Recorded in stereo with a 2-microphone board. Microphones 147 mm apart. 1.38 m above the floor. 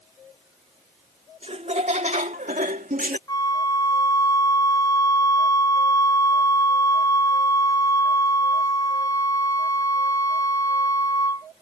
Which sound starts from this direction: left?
A flute, at 3.3 s.